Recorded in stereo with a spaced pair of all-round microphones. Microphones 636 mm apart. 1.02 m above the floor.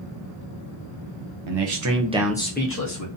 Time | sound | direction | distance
1.5 | a man speaking | 50° right (ahead or behind) | 0.7 m